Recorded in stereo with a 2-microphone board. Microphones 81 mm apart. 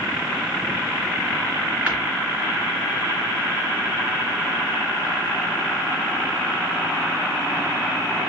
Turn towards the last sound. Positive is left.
turn(degrees=-20)  # may be behind; listen again after turning